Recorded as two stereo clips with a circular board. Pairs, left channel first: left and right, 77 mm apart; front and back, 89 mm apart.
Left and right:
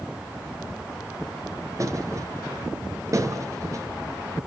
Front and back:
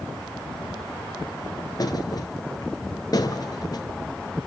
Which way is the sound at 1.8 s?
45° right.